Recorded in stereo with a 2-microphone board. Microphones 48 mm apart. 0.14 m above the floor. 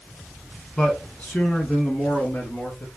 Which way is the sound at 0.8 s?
20° left (ahead or behind).